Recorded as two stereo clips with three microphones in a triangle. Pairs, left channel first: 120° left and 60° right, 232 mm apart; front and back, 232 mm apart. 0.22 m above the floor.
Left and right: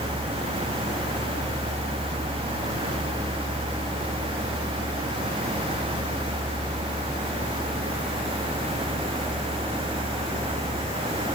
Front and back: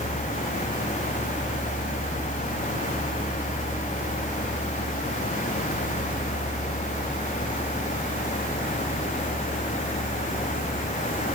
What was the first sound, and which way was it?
Only background noise.